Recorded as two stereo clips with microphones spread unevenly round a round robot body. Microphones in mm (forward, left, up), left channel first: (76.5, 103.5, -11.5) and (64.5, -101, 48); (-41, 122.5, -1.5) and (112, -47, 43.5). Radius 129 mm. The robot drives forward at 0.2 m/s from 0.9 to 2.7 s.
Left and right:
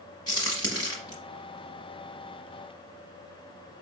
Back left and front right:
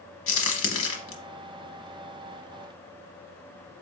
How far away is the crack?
About 1.0 m.